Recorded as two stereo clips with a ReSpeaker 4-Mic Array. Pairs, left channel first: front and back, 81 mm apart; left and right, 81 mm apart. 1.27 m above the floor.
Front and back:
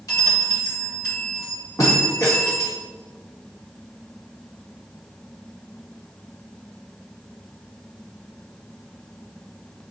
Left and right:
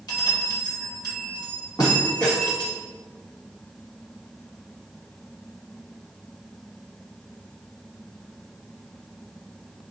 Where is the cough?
No cough in this recording.